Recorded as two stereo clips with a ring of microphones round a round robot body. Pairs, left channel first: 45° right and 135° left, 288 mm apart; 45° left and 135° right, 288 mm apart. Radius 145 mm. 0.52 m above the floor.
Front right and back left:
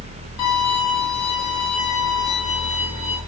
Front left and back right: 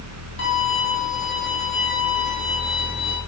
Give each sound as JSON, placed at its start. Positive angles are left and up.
{"t": 0.4, "sound": "a violin", "azimuth_deg": -20, "distance_m": 6.5}